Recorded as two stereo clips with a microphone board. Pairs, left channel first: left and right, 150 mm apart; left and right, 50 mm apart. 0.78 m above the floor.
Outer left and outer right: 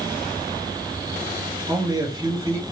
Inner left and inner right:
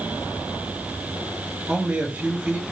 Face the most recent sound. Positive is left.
turn(degrees=-25)  # may be behind; listen again after turning